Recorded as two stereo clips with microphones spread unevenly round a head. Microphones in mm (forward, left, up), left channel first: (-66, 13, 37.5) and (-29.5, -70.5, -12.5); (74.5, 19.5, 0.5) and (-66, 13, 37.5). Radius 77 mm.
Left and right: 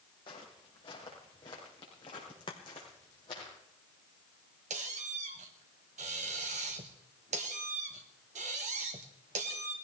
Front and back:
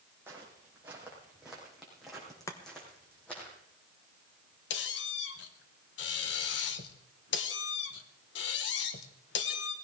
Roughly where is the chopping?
Left.